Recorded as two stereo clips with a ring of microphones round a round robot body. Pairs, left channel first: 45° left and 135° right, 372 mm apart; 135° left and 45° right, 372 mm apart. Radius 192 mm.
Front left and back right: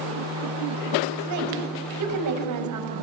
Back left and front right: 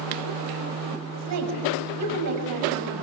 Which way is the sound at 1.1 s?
90° right.